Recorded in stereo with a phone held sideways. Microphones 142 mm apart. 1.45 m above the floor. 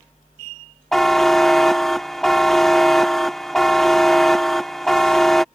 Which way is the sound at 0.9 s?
Centre (ahead or behind).